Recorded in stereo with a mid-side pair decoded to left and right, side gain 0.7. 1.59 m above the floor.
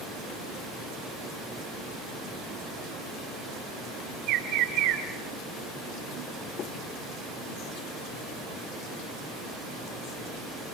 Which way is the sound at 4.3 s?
60° right.